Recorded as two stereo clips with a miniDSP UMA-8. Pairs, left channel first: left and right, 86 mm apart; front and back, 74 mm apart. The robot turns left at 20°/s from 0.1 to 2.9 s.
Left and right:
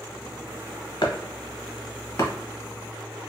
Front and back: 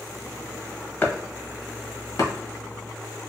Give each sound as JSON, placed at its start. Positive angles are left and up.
{"t": 1.0, "sound": "chopping", "azimuth_deg": 60, "distance_m": 0.9}